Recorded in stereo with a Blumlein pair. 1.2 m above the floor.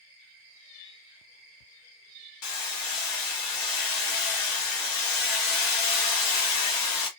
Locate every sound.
2.4 s hammering: 45° left, 1.0 m